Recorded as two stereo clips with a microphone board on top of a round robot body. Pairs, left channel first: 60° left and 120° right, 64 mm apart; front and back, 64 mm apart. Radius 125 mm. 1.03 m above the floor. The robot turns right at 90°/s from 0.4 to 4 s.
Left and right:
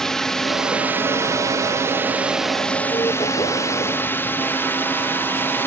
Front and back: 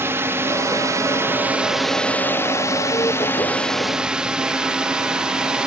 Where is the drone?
140° left; by 5.7 s 105° left.